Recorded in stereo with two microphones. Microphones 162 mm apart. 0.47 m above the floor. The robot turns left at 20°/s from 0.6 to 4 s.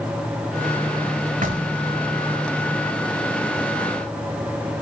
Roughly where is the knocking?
Right.